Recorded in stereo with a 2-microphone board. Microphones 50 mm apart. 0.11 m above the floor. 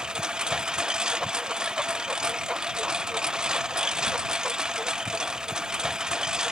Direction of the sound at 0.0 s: 15° right (ahead or behind).